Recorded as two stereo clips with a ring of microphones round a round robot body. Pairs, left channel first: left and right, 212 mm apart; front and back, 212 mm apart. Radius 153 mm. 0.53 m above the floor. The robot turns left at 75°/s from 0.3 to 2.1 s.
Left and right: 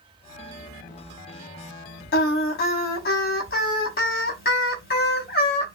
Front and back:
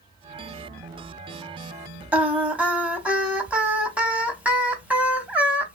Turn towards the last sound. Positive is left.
turn(degrees=100)